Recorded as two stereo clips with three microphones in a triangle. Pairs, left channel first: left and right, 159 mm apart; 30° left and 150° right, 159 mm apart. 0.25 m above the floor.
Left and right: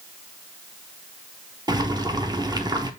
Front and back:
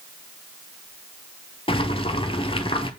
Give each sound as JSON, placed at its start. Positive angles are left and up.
{"t": 1.7, "sound": "boiling", "azimuth_deg": -25, "distance_m": 0.7}